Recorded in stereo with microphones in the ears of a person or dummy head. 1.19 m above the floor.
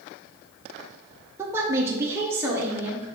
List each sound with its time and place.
1.4 s a woman speaking: 15° right (ahead or behind), 0.7 m; by 3.1 s 10° right (ahead or behind), 1.5 m